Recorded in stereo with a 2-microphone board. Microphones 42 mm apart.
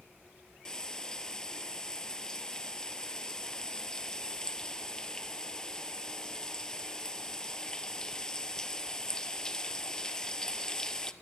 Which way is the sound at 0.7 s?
15° left (ahead or behind).